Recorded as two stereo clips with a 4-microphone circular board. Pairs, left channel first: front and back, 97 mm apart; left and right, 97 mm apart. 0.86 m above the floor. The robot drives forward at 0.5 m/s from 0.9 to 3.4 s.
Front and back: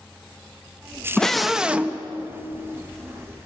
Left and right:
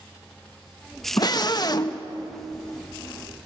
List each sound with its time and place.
1.2 s a scream: 80° left, 0.8 m; by 2.0 s 120° left, 0.9 m